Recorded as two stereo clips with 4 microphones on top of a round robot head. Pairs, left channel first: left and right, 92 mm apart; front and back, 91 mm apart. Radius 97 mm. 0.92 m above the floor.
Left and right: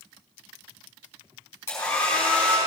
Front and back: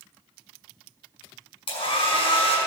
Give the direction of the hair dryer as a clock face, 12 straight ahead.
11 o'clock.